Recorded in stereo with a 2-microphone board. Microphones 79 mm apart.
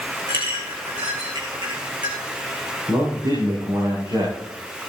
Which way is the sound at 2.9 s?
75° right (ahead or behind).